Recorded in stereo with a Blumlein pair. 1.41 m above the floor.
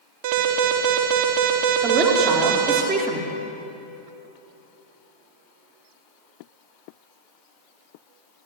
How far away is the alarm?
About 3.5 m.